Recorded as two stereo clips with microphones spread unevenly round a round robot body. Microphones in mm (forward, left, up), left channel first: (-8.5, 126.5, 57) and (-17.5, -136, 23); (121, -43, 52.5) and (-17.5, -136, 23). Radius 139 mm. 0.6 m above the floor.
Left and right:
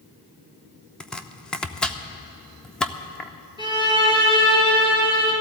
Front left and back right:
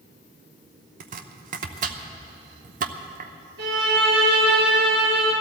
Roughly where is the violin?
Behind.